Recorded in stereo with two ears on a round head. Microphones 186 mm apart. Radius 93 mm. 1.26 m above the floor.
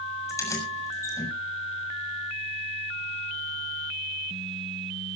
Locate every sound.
0.3 s keys jangling: 15° left (ahead or behind), 6.5 m